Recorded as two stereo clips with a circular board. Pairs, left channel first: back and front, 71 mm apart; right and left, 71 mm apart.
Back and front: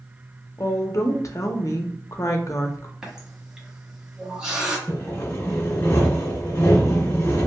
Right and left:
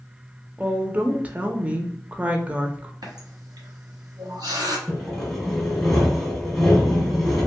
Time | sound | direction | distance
0.6 | a woman speaking | 155° left | 0.5 m
3.0 | a running tap | 80° left | 0.8 m
4.9 | sawing | 175° right | 1.1 m